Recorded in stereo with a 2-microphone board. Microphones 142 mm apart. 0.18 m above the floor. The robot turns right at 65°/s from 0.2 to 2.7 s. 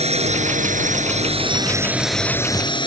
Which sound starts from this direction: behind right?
A drone, at 0.0 s.